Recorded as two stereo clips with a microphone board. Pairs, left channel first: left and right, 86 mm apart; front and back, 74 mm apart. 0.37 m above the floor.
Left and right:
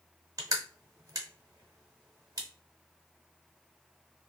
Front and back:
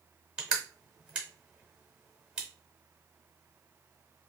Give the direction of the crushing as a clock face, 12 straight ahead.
4 o'clock.